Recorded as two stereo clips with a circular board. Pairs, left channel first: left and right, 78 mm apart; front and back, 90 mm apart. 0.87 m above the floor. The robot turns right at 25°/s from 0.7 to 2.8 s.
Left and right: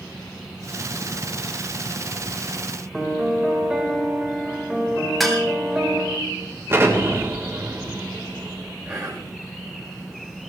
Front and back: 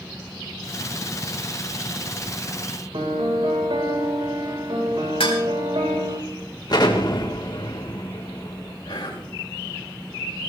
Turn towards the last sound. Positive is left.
turn(degrees=-20)